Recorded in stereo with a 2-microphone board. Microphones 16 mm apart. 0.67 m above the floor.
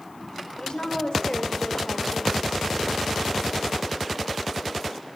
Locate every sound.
0.6 s a woman speaking: 70° left (ahead or behind), 2 m